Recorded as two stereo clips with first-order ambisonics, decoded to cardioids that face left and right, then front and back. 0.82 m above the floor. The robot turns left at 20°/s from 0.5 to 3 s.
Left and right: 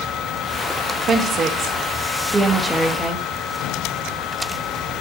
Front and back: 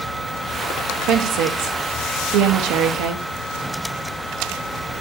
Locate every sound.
1.1 s a woman speaking: 145° right, 0.7 m; by 3.2 s 175° left, 0.7 m